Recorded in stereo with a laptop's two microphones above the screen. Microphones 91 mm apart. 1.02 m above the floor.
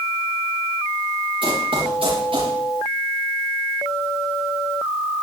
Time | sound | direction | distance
1.4 | running footsteps | 70° right (ahead or behind) | 5 m